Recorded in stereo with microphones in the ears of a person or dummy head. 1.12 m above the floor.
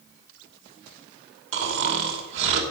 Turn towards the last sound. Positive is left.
turn(degrees=-85)